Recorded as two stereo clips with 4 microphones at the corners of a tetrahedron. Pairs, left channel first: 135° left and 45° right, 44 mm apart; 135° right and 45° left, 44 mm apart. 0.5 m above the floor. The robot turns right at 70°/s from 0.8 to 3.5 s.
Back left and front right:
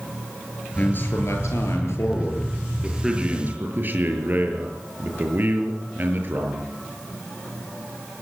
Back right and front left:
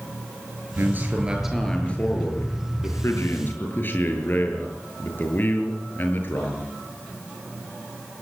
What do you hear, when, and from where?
0.8 s a man speaking: 80° left, 7.5 m; by 6.7 s 90° right, 7.5 m